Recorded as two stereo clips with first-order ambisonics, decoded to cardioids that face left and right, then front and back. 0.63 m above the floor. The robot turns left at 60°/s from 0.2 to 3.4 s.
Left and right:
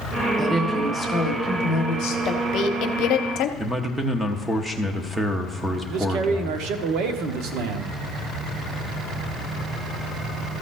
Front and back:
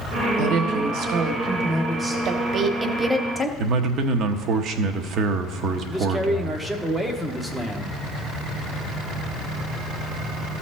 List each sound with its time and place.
0.4 s a woman speaking: 170° right, 1.5 m; by 2.1 s 85° left, 1.5 m
2.2 s a woman speaking: 140° left, 0.8 m; by 3.5 s 75° left, 0.8 m
3.6 s a man speaking: 175° right, 0.8 m
5.9 s a man speaking: 95° right, 0.9 m